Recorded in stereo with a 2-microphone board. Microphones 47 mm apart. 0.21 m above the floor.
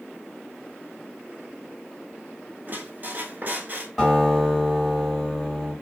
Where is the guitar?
5° left (ahead or behind), 1.9 m.